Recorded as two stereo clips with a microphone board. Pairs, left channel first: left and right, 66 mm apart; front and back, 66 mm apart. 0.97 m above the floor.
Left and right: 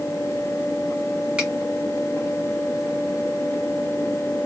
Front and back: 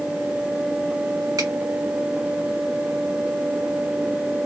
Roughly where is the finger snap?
Behind.